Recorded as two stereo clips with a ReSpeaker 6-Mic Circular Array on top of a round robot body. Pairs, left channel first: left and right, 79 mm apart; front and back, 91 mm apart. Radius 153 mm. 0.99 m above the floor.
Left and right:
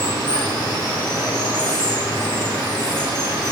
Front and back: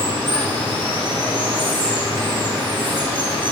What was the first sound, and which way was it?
Running water, 145° right.